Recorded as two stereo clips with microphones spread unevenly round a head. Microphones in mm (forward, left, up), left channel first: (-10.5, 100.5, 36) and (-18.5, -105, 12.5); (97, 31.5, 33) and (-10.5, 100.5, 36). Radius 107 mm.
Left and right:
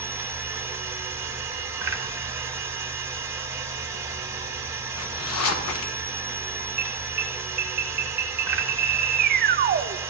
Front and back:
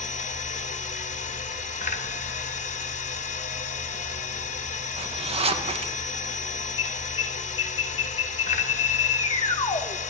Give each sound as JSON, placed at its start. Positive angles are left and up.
{"t": 0.0, "sound": "a machine running", "azimuth_deg": -15, "distance_m": 0.8}
{"t": 5.0, "sound": "a zipper", "azimuth_deg": 105, "distance_m": 0.8}
{"t": 6.8, "sound": "an alarm", "azimuth_deg": -70, "distance_m": 0.5}